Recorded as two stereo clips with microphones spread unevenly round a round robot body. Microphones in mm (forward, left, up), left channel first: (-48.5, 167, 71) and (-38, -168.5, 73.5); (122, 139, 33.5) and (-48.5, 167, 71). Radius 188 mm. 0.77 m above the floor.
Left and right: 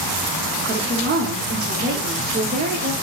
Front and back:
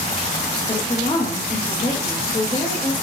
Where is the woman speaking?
35° right, 0.6 m.